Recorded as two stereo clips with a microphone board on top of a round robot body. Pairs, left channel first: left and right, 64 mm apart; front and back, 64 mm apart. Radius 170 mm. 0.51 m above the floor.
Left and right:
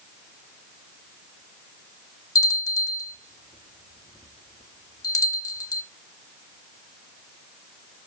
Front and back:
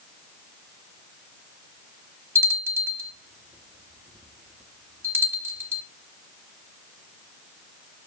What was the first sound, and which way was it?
A bell, 130° left.